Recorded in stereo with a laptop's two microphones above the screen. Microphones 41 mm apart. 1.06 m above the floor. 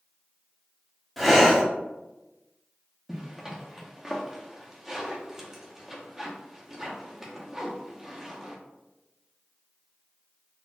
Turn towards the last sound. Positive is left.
turn(degrees=-10)  # may be behind; listen again after turning